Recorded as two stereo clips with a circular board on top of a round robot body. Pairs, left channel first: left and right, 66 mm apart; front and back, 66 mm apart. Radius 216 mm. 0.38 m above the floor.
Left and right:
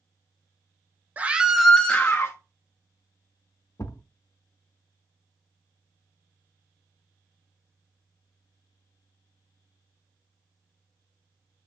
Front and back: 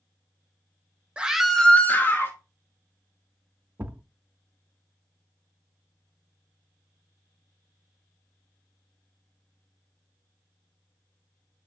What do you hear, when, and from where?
1.2 s a scream: 125° right, 0.8 m; by 2.4 s 40° left, 1.1 m
3.8 s a thud: 120° left, 0.6 m